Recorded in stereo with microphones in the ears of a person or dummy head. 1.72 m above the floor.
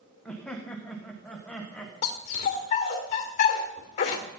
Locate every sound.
0.2 s laughter: 5° left (ahead or behind), 1.6 m
2.0 s a dog barking: 45° left (ahead or behind), 1.9 m